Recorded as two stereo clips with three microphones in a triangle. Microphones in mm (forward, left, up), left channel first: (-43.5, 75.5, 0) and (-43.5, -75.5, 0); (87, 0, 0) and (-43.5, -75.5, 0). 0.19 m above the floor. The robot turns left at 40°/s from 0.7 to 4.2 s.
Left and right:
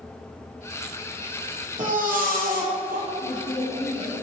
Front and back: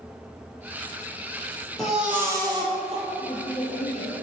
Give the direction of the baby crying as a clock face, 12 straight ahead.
2 o'clock.